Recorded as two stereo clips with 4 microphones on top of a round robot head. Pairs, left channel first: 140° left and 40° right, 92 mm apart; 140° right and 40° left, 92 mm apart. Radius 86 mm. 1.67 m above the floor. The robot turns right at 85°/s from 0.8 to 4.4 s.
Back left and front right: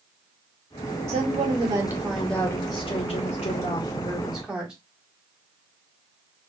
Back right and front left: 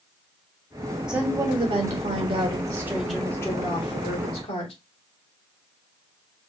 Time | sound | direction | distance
1.1 | a woman speaking | 45° right | 2 m